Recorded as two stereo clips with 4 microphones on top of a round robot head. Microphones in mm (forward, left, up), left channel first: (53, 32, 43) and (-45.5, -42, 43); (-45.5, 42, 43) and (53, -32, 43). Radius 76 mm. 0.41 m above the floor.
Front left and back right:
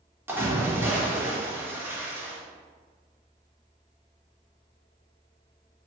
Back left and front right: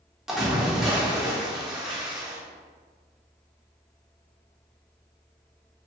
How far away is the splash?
About 1.4 m.